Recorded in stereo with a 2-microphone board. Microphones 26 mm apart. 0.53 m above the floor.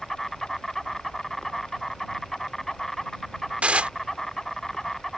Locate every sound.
0.0 s an insect: 10° left (ahead or behind)
3.6 s dishes clattering: 55° right (ahead or behind)